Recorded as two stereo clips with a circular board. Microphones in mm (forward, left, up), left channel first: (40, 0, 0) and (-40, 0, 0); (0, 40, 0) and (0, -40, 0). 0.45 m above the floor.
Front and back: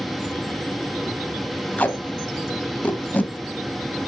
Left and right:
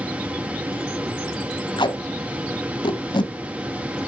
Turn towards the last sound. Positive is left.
turn(degrees=70)